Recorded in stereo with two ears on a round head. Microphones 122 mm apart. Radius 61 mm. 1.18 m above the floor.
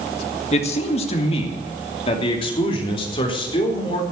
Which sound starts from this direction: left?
A man speaking, at 0.5 s.